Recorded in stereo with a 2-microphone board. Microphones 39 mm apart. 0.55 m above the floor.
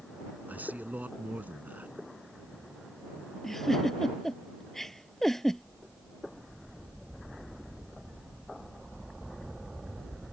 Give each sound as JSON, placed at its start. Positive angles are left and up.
{"t": 0.5, "sound": "a man speaking", "side_deg": -45}
{"t": 3.4, "sound": "a giggle", "side_deg": 5}